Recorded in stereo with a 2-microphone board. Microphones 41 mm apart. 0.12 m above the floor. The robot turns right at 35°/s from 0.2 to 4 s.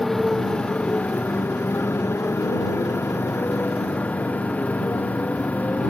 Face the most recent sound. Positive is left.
turn(degrees=145)